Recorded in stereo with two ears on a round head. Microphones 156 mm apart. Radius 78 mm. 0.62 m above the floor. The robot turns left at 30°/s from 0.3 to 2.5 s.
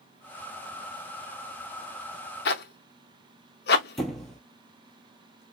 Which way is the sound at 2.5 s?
60° left (ahead or behind).